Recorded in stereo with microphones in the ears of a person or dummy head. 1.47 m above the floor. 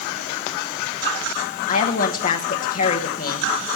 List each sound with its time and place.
1.7 s a woman speaking: 50° left (ahead or behind), 1.1 m